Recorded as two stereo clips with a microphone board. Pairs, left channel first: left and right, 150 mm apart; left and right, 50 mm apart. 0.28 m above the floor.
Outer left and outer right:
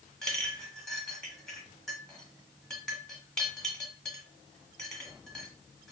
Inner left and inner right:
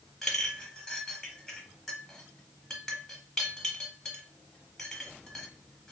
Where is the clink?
5° left (ahead or behind), 1.0 m.